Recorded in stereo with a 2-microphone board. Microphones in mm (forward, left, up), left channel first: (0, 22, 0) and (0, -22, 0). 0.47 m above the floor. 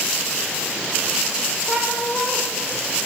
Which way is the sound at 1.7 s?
5° right (ahead or behind).